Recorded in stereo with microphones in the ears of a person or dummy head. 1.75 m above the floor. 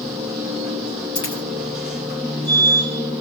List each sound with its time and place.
0.0 s a machine running: 5° right (ahead or behind), 2.5 m
1.1 s a dropped coin: 20° left (ahead or behind), 2.5 m